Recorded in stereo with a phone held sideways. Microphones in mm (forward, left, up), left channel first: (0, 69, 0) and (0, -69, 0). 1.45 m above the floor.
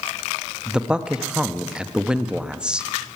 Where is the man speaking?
5° right (ahead or behind), 0.7 m.